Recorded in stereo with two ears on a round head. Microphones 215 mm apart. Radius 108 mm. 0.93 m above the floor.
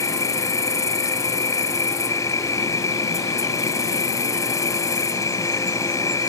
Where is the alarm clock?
I don't hear an alarm clock.